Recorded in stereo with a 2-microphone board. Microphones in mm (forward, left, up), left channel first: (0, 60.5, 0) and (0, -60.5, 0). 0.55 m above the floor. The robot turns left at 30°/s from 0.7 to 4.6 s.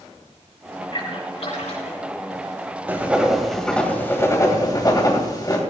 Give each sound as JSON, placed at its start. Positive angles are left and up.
{"t": 0.9, "sound": "a splash", "side_deg": 40, "distance_m": 4.5}
{"t": 2.9, "sound": "writing", "azimuth_deg": -160, "distance_m": 2.0}